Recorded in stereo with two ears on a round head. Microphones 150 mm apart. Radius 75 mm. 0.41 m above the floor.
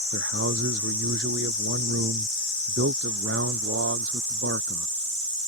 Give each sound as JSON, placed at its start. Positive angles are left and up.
{"t": 0.1, "sound": "a man speaking", "side_deg": -85}